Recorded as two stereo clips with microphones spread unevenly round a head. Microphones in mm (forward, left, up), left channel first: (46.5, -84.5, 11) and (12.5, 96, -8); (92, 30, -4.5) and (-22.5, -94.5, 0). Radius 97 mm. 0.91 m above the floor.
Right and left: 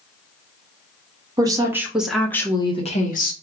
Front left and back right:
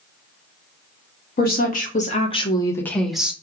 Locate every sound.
1.4 s a woman speaking: 40° left, 1.1 m; by 3.3 s 50° right, 0.9 m